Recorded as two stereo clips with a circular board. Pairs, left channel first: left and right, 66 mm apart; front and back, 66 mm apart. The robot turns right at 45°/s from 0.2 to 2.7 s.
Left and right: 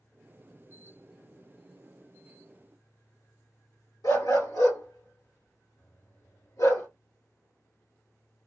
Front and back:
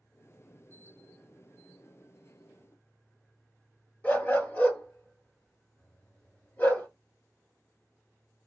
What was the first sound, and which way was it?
A dog barking, 65° left.